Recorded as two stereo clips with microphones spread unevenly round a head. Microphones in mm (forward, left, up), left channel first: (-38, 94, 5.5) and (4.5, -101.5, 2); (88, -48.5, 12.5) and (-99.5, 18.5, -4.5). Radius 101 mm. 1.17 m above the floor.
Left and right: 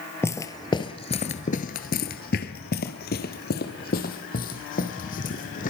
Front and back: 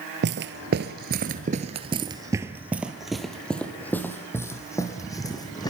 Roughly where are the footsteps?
Behind.